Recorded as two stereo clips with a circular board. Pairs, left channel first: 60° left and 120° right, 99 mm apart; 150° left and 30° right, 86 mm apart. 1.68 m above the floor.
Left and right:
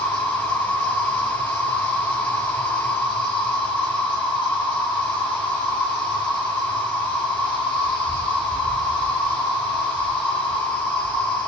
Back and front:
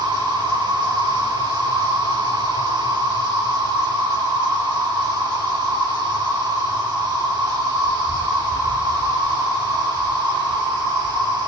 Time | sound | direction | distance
0.0 | an insect | 165° left | 1.8 m